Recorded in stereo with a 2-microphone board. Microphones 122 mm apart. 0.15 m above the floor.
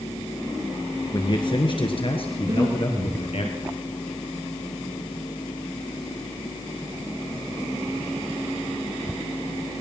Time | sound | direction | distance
1.1 | a man speaking | 40° left (ahead or behind) | 2.5 m
2.4 | breathing | 40° right (ahead or behind) | 6 m